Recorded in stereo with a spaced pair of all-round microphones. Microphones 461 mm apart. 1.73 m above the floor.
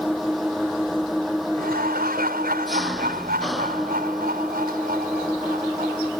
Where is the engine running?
Centre (ahead or behind).